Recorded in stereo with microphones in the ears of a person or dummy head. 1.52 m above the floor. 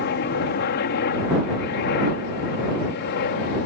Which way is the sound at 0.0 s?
55° left (ahead or behind).